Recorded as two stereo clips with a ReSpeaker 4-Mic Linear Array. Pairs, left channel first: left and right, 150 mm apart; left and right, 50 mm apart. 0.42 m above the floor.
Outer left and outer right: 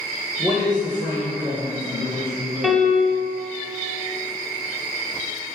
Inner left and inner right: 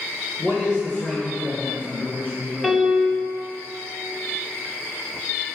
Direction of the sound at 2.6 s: 5° right (ahead or behind).